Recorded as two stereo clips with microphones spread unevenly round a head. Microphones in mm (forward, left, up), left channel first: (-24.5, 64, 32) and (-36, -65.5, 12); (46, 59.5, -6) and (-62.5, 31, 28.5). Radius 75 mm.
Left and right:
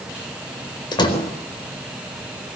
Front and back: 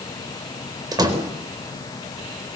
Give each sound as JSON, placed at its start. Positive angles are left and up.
{"t": 0.9, "sound": "a door slam", "azimuth_deg": 140, "distance_m": 4.5}